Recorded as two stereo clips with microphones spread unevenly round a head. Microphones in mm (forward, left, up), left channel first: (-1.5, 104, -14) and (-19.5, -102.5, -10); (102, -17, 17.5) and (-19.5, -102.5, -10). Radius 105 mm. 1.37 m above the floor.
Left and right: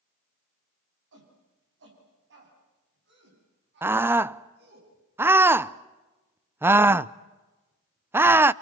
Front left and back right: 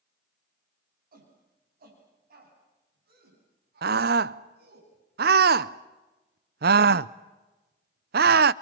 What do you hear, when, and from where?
1.1 s a shout: 125° right, 10 m; by 4.8 s 135° right, 11.5 m
3.8 s a scream: 175° right, 0.5 m